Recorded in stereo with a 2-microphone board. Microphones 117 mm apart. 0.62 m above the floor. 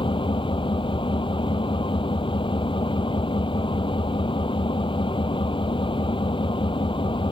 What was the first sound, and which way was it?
An engine running, 45° left (ahead or behind).